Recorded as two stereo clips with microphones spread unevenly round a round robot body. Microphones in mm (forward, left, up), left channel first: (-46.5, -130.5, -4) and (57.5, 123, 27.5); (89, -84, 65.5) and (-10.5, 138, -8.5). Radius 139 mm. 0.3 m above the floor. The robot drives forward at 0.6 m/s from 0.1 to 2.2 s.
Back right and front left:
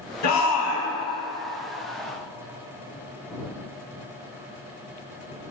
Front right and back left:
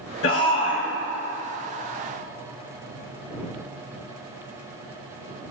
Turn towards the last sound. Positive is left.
turn(degrees=-135)